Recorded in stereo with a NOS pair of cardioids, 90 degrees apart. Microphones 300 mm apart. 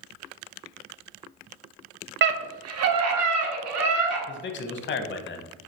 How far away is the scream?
About 0.6 m.